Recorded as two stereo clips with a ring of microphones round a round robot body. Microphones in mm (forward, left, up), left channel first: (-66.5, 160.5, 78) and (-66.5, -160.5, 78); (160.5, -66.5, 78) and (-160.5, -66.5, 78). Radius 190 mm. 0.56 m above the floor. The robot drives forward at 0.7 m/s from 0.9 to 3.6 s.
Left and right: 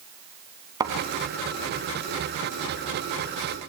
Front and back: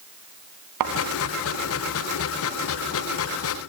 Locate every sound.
0.8 s a thud: 170° right, 2.5 m